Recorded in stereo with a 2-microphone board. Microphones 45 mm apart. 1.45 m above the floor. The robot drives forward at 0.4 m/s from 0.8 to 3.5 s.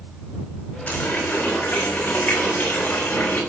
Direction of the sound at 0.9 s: 50° left (ahead or behind).